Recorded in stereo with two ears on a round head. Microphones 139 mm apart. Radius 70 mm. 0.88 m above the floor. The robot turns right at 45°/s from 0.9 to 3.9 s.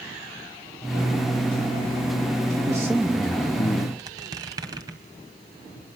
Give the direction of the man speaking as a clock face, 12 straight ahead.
1 o'clock.